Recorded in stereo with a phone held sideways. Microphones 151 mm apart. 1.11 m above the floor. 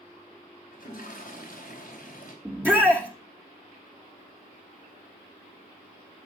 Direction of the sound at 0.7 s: 65° left (ahead or behind).